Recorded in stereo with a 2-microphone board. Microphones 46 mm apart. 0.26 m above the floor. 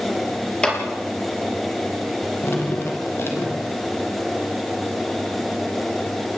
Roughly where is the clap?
Centre.